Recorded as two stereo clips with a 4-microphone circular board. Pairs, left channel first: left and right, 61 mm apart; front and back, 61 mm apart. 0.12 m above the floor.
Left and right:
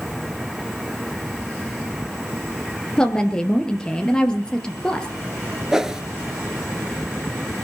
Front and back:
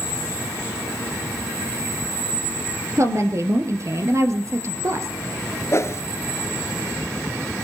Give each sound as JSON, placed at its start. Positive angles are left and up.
{"t": 3.0, "sound": "a woman speaking", "azimuth_deg": 165, "distance_m": 2.5}
{"t": 5.7, "sound": "a whoosh", "azimuth_deg": -15, "distance_m": 1.1}